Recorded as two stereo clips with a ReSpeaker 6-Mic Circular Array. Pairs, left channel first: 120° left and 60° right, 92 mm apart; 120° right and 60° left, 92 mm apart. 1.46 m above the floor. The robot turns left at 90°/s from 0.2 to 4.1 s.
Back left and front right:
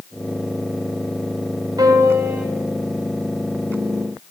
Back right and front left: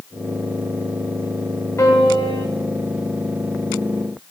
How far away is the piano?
About 1.8 m.